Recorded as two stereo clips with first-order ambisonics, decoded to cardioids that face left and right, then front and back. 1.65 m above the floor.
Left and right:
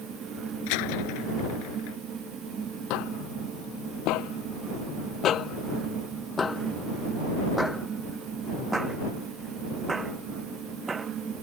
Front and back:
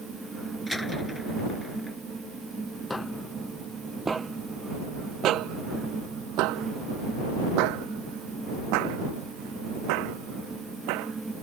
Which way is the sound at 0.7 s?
85° left.